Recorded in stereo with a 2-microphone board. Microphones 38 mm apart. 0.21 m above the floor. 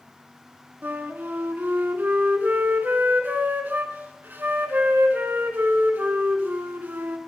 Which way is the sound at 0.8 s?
60° right (ahead or behind).